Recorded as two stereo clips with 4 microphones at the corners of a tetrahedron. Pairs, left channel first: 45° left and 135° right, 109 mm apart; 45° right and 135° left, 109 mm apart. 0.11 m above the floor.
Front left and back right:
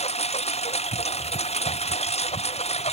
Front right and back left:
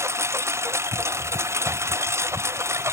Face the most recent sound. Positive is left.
turn(degrees=70)